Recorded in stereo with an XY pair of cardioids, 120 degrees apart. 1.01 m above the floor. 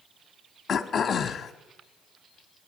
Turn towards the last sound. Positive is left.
turn(degrees=35)